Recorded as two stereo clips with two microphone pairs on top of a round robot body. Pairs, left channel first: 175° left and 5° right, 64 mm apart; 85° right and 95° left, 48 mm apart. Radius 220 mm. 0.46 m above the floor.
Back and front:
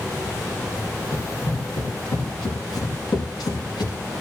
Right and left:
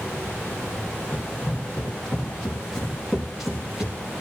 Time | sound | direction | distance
1.1 | running footsteps | 150° right | 5 m